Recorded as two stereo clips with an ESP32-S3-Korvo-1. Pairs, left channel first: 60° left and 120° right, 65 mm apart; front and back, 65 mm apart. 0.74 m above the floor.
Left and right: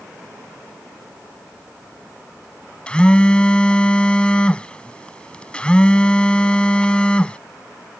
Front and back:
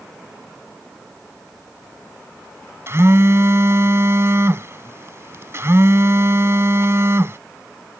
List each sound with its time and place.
2.9 s a phone buzzing: 130° left